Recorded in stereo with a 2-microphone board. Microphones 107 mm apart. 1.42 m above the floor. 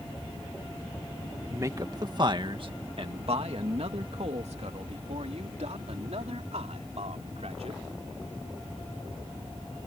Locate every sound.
1.5 s a man speaking: 30° right (ahead or behind); by 7.8 s 80° right